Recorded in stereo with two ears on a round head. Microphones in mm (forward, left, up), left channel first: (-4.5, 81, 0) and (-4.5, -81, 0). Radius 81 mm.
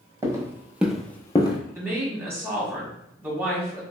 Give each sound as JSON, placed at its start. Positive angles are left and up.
{"t": 0.2, "sound": "footsteps", "side_deg": -20, "distance_m": 1.1}
{"t": 1.8, "sound": "a woman speaking", "side_deg": -15, "distance_m": 1.4}